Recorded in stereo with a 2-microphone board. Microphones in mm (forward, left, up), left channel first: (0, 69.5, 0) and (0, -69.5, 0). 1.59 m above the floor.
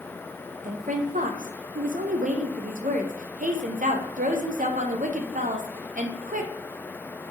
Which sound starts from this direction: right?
A woman speaking, at 0.6 s.